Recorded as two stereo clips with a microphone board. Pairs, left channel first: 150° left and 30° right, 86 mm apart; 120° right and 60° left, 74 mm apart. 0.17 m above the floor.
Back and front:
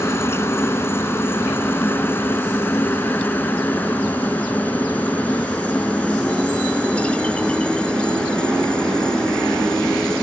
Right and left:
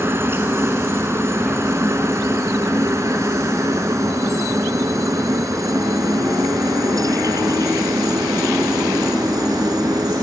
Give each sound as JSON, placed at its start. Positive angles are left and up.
{"t": 0.0, "sound": "a helicopter", "azimuth_deg": 105}